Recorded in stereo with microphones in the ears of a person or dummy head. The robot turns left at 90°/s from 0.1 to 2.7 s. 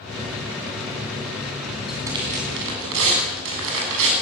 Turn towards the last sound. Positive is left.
turn(degrees=-75)